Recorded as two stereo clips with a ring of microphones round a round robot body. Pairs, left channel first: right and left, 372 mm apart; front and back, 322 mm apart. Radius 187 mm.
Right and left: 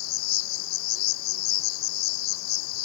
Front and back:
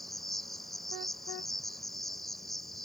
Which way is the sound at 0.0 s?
90° right.